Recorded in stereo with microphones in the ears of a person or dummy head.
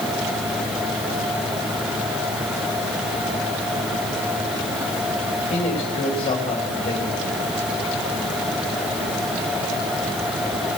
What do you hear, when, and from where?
5.4 s a man speaking: 30° left (ahead or behind), 3 m